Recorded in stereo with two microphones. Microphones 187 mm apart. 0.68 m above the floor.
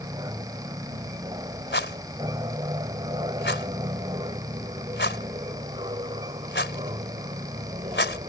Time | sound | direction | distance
0.0 | an aircraft | 20° right (ahead or behind) | ?
1.7 | a rattle | 75° left (ahead or behind) | ?